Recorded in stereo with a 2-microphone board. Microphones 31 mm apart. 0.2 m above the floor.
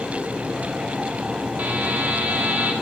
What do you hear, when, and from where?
1.6 s a buzzer: 60° right (ahead or behind), 3.5 m